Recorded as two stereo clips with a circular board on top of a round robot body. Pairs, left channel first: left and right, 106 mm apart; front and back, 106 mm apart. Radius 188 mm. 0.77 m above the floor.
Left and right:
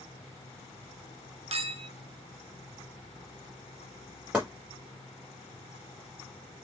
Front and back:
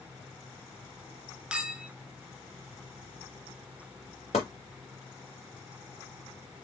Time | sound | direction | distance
1.5 | a clink | 100° right | 0.6 m
4.3 | chopping | 15° right | 0.6 m